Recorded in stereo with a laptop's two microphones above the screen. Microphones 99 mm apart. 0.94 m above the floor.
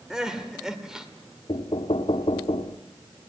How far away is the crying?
About 1.8 m.